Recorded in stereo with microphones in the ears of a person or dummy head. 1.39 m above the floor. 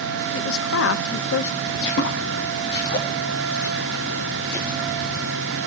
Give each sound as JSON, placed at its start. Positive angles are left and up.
{"t": 0.3, "sound": "a woman speaking", "side_deg": 80, "distance_m": 1.0}
{"t": 1.7, "sound": "footsteps", "side_deg": 60, "distance_m": 3.5}